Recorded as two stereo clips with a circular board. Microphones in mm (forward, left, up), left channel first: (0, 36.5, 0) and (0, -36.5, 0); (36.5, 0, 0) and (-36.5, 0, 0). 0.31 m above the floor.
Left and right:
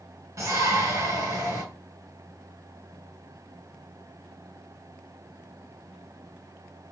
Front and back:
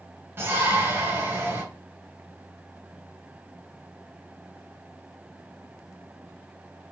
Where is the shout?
130° right, 3.5 m.